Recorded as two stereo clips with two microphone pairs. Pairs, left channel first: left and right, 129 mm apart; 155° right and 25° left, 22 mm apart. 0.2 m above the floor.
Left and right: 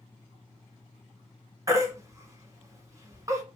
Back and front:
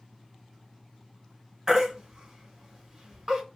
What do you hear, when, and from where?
1.7 s a baby crying: 35° right, 1.0 m